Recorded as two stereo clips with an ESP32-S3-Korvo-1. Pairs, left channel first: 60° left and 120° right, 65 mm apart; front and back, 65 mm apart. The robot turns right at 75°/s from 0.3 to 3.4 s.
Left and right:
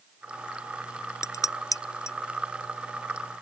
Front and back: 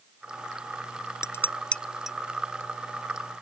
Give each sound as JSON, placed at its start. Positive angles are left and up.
{"t": 1.2, "sound": "dishes clattering", "azimuth_deg": 35}